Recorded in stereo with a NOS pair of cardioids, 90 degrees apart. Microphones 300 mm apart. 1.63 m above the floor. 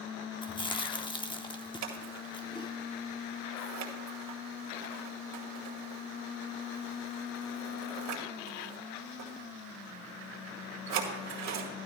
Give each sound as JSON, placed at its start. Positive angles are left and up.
{"t": 0.4, "sound": "chewing", "azimuth_deg": 15, "distance_m": 1.0}
{"t": 1.8, "sound": "scissors", "azimuth_deg": -65, "distance_m": 2.0}